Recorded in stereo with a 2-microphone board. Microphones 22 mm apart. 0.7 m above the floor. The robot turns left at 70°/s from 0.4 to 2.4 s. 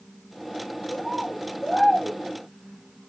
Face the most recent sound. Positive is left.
turn(degrees=-45)